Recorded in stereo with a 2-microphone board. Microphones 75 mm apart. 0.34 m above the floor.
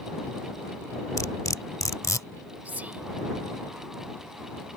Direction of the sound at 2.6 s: 20° right (ahead or behind).